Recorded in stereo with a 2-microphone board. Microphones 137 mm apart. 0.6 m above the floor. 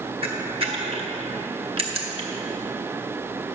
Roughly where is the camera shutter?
Right.